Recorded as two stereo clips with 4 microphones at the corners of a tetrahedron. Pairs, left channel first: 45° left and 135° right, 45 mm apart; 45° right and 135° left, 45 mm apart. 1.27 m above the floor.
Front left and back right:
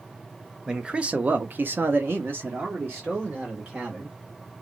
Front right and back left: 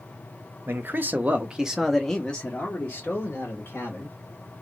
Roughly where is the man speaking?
Behind left.